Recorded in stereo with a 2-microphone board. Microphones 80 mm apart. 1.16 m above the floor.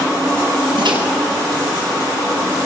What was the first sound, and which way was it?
A microwave, 80° right.